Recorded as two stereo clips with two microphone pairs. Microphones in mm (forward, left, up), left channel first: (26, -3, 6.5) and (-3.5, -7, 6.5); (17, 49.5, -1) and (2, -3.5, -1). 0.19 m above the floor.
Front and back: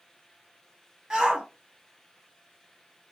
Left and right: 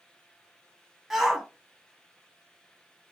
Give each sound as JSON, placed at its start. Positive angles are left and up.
{"t": 1.1, "sound": "a shout", "azimuth_deg": 170, "distance_m": 1.1}